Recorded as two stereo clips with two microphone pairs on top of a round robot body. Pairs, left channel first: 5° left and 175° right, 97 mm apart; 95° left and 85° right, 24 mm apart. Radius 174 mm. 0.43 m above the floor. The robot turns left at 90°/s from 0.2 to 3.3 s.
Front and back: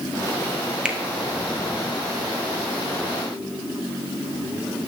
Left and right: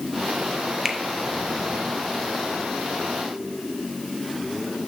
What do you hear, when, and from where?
0.8 s a finger snap: 110° right, 1.0 m; by 1.0 s 120° right, 1.0 m